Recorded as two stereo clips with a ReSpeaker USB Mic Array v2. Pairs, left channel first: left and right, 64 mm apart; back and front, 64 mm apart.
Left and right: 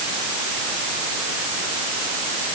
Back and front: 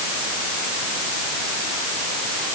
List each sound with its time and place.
Only background noise.